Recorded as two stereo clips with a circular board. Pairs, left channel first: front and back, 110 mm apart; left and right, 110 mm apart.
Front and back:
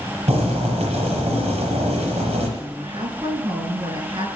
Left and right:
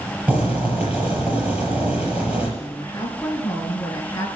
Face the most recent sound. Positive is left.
turn(degrees=145)